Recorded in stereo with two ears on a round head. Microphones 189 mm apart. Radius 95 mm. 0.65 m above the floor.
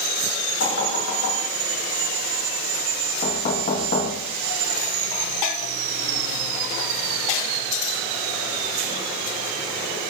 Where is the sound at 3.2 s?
50° left (ahead or behind), 3.5 m.